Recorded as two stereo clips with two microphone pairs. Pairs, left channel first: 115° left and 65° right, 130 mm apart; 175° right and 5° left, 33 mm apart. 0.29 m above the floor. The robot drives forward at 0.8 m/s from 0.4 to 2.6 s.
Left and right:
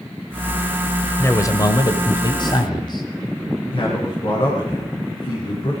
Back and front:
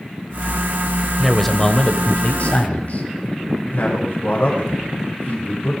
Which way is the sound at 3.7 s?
160° left.